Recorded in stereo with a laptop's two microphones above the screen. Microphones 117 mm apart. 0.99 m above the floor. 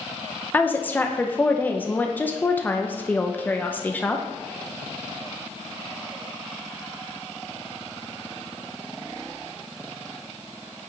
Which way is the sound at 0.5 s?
15° left (ahead or behind).